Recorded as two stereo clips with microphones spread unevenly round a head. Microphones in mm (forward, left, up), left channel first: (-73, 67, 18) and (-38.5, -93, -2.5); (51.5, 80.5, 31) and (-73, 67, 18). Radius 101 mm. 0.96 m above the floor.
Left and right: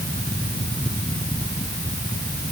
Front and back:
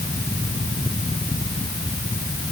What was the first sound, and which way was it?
Only background noise.